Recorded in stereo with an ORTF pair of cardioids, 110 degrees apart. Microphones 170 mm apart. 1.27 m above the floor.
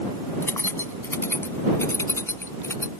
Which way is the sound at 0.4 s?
15° left.